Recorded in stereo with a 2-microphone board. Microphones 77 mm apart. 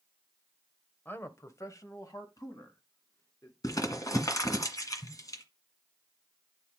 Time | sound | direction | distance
1.1 | a man speaking | 25° left (ahead or behind) | 1.0 m
3.6 | crumpling | 50° left (ahead or behind) | 1.6 m